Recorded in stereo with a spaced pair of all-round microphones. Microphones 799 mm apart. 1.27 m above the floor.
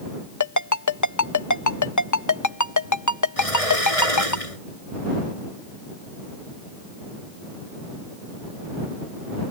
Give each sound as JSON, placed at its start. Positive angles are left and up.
{"t": 0.4, "sound": "a ringtone", "side_deg": 20}
{"t": 3.4, "sound": "a sliding door", "side_deg": 45}